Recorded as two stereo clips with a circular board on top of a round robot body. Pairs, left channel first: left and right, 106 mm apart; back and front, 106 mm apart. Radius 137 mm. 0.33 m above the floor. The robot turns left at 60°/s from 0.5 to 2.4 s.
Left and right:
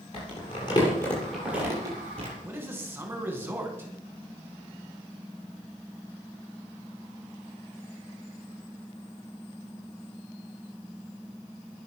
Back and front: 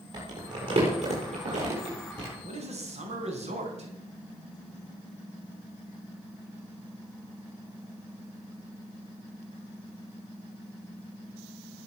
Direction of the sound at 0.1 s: 50° left.